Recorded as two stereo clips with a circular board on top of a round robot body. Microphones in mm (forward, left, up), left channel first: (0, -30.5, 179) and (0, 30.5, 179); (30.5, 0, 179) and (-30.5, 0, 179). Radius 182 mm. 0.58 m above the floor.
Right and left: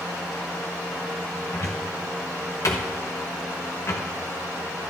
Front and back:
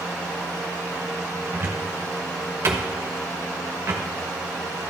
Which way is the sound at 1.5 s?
130° right.